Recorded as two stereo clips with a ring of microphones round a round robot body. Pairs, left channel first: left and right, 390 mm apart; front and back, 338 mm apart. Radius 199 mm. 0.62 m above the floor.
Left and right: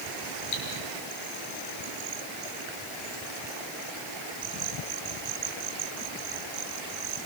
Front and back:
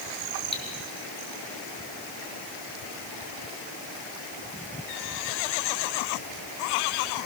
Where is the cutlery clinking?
75° left, 6.5 m.